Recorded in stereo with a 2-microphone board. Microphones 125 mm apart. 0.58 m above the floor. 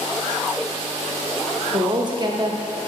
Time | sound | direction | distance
1.7 | a woman speaking | 35° right (ahead or behind) | 0.7 m